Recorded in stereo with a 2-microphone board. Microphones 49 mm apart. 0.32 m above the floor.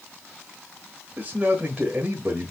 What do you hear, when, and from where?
1.2 s a man speaking: 30° right (ahead or behind), 1.0 m